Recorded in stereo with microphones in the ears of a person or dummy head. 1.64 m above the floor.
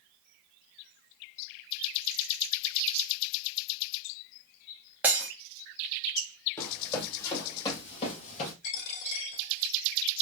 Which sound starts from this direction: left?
A dropped coin, at 8.6 s.